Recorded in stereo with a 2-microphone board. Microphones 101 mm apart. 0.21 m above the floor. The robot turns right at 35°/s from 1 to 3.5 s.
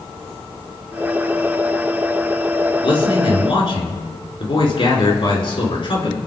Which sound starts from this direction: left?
A man speaking, at 2.8 s.